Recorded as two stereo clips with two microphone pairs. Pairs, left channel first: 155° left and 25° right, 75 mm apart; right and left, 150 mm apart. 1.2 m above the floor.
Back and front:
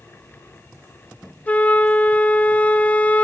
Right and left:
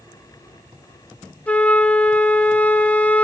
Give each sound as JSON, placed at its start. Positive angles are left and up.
{"t": 1.5, "sound": "a flute", "azimuth_deg": -165, "distance_m": 0.8}